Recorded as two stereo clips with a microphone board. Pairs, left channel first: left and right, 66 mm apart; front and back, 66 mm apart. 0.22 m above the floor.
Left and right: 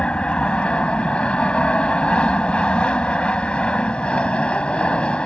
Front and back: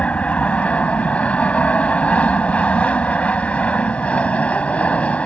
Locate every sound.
0.0 s an aircraft: 40° left